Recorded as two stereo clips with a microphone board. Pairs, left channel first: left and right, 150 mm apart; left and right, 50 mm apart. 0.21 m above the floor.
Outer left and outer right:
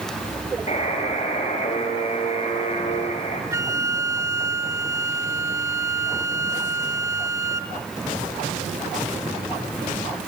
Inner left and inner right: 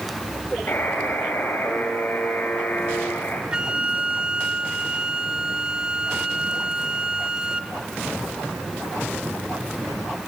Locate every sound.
0.7 s a buzzer: 50° left (ahead or behind), 4.5 m
3.5 s a flute: 20° right (ahead or behind), 0.9 m